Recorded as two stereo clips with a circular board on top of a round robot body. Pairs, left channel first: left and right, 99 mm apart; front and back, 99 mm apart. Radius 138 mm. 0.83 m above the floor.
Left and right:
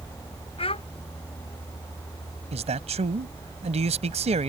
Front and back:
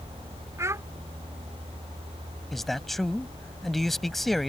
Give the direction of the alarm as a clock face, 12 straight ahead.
No alarm in this recording.